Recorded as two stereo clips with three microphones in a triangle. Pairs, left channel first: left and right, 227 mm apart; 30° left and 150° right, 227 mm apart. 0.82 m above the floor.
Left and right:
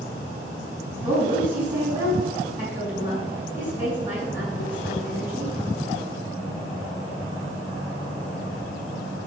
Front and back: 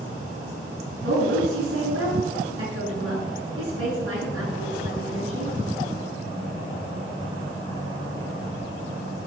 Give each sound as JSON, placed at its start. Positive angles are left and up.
{"t": 0.9, "sound": "a woman speaking", "azimuth_deg": -170, "distance_m": 6.5}